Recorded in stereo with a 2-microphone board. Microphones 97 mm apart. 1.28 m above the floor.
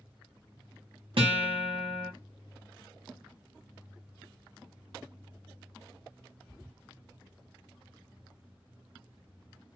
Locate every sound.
1.2 s a guitar: 65° right (ahead or behind), 1.0 m